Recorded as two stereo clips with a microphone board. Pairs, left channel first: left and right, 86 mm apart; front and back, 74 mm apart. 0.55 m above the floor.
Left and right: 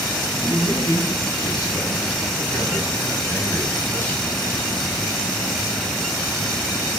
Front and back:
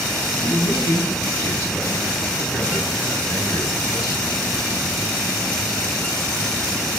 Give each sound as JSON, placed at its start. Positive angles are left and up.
{"t": 0.4, "sound": "a man speaking", "azimuth_deg": 55, "distance_m": 5.5}